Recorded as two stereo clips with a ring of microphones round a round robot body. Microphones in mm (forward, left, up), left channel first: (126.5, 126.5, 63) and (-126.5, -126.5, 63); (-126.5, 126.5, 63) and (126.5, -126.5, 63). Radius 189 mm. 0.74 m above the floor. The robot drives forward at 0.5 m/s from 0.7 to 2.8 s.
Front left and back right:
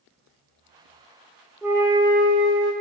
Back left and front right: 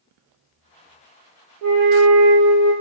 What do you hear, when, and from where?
1.6 s a flute: 50° right, 0.6 m; by 2.7 s 110° right, 0.5 m